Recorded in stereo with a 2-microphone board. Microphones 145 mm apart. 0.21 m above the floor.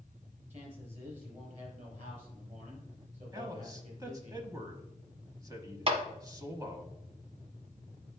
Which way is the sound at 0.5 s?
50° right (ahead or behind).